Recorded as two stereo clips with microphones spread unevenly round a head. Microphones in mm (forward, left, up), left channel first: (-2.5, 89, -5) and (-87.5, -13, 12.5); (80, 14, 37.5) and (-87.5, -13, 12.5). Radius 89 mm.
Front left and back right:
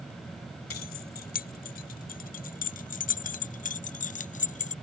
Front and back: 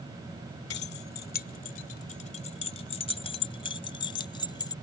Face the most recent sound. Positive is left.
turn(degrees=75)